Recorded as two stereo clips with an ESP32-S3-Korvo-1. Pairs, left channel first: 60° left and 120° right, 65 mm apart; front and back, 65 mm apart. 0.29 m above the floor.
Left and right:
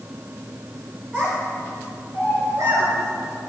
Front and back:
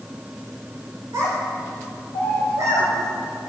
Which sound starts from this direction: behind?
A child speaking, at 1.1 s.